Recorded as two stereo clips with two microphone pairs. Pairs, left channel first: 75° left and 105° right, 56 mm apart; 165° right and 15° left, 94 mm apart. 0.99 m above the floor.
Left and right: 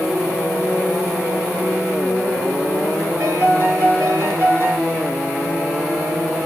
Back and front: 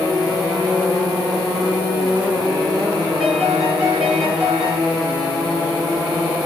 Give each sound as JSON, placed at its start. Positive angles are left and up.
{"t": 3.2, "sound": "a piano", "azimuth_deg": -65, "distance_m": 3.0}